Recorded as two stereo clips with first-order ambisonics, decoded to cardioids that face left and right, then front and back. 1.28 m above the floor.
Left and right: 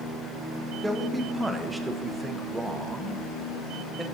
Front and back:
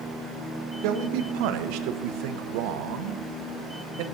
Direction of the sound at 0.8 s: 175° right.